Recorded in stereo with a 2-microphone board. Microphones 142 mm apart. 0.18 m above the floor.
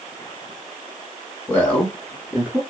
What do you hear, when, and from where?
1.5 s a man speaking: 15° left (ahead or behind), 1.3 m; by 2.6 s 15° right (ahead or behind), 1.7 m